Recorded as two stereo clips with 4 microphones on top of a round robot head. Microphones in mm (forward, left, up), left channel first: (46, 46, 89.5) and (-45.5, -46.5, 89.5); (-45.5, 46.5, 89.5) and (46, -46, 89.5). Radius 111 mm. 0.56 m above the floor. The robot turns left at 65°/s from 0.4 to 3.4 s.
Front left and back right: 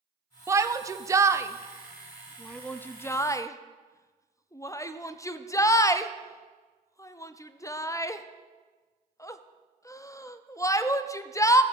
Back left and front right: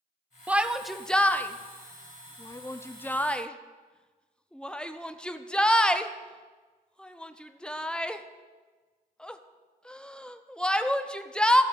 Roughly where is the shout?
Right.